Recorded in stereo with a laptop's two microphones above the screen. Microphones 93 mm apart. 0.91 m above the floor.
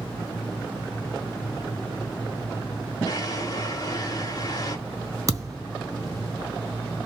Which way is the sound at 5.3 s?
35° right (ahead or behind).